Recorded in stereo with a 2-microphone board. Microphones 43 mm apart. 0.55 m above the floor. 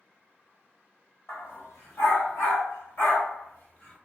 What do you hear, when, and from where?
1.3 s a dog barking: 85° left, 1.5 m; by 4.0 s 30° left (ahead or behind), 1.2 m